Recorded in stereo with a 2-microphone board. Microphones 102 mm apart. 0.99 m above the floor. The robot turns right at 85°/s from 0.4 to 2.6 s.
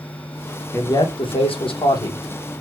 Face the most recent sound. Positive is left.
turn(degrees=-175)